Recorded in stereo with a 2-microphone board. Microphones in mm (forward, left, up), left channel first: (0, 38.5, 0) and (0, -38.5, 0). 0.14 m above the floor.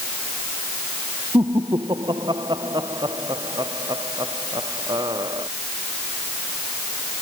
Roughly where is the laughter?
Right.